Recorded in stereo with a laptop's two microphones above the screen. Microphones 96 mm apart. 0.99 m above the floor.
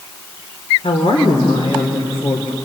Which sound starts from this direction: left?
A woman speaking, at 0.8 s.